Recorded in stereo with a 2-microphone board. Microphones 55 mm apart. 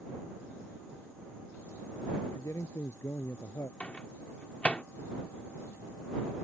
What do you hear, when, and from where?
2.2 s a man speaking: 70° left (ahead or behind); by 3.7 s 80° left
3.8 s a microwave: 25° left (ahead or behind)